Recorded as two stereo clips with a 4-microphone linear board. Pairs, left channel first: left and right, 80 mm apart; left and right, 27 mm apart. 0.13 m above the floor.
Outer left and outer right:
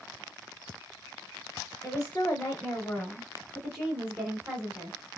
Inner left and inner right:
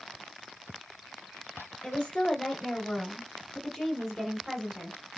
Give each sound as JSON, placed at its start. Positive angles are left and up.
{"t": 1.8, "sound": "a woman speaking", "side_deg": 25, "distance_m": 1.8}